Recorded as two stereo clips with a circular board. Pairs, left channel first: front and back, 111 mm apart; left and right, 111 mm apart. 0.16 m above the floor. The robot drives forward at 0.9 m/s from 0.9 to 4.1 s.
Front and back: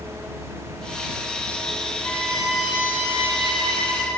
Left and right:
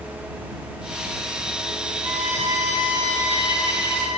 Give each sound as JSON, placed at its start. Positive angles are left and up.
{"t": 2.0, "sound": "a violin", "azimuth_deg": -60, "distance_m": 1.6}